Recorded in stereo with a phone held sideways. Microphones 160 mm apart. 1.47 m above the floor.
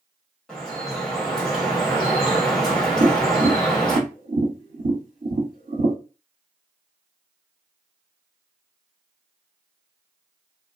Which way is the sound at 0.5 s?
5° left (ahead or behind).